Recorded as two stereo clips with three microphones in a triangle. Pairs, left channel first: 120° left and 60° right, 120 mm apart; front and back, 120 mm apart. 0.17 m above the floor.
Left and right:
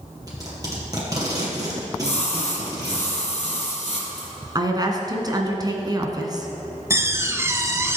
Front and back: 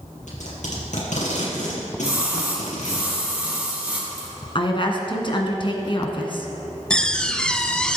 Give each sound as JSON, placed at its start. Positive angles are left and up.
{"t": 0.3, "sound": "tape being pulled", "azimuth_deg": 0, "distance_m": 4.0}
{"t": 2.0, "sound": "a splash", "azimuth_deg": 100, "distance_m": 3.0}
{"t": 4.5, "sound": "a woman speaking", "azimuth_deg": -20, "distance_m": 1.9}
{"t": 6.9, "sound": "a door slam", "azimuth_deg": -70, "distance_m": 0.8}